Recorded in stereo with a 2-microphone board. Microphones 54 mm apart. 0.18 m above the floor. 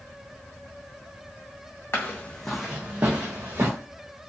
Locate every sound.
1.9 s footsteps: 50° left (ahead or behind), 0.8 m; by 3.7 s 55° right (ahead or behind), 1.6 m